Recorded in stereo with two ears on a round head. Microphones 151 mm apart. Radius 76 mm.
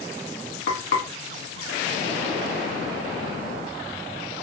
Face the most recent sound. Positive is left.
turn(degrees=65)  # may be behind; listen again after turning